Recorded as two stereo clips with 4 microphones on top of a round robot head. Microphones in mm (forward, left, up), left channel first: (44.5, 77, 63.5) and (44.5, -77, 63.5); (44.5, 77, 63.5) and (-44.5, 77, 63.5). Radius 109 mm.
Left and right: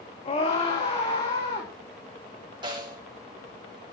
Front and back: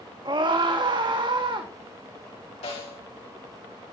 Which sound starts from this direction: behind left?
A scream, at 0.2 s.